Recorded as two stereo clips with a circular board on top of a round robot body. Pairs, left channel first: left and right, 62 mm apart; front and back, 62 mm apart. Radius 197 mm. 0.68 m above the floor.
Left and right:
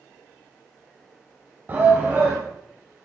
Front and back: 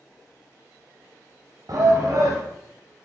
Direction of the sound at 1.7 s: 150° right.